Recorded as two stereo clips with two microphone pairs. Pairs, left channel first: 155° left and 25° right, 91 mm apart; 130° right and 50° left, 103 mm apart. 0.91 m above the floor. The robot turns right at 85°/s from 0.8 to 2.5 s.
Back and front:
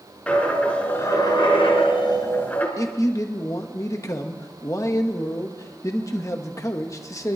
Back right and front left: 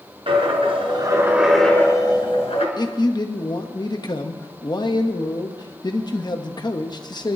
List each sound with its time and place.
0.3 s a dropped coin: 80° left, 3 m; by 2.7 s 135° right, 3 m
2.8 s a man speaking: 160° right, 1.1 m